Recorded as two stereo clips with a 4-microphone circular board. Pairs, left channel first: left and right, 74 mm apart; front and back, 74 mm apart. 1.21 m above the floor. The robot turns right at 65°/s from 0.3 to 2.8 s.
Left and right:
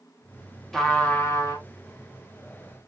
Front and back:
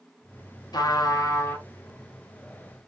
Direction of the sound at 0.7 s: 5° left.